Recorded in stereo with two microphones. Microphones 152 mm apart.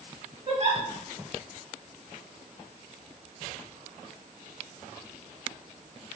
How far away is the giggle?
About 0.8 m.